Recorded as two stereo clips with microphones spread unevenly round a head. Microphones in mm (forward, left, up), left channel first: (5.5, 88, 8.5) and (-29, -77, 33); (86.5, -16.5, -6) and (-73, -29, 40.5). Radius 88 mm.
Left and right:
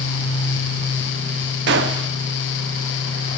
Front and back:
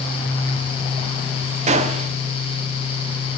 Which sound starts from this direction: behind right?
A gunshot, at 1.7 s.